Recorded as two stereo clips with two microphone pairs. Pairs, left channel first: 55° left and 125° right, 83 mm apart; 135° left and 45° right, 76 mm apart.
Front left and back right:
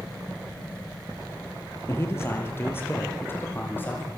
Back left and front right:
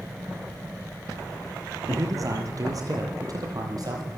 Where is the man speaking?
5° right, 4.5 m; by 4.1 s 10° right, 7 m.